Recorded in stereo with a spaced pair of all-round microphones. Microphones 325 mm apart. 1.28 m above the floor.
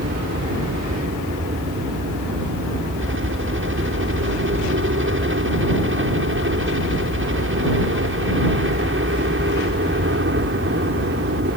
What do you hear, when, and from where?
0.0 s a helicopter: 40° right (ahead or behind)